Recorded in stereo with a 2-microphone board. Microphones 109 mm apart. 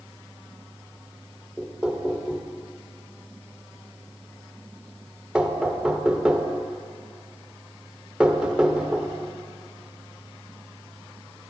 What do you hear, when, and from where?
1.6 s knocking: 10° right (ahead or behind), 0.5 m